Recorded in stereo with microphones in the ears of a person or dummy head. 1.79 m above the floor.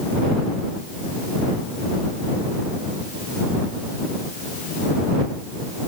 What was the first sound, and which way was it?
Only background noise.